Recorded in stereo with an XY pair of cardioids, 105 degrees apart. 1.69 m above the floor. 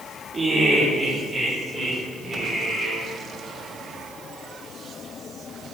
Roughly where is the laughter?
Ahead right.